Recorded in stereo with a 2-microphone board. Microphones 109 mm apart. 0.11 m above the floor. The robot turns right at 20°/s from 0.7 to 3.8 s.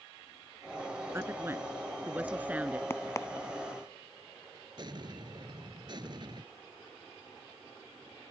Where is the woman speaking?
25° right (ahead or behind); by 2.8 s 15° right (ahead or behind).